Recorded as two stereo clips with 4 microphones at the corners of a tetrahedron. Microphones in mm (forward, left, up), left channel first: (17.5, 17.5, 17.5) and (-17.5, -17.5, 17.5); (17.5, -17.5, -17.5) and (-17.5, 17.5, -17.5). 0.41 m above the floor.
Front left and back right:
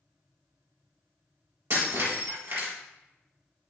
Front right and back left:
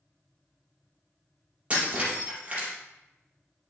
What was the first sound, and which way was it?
Breaking glass, 165° right.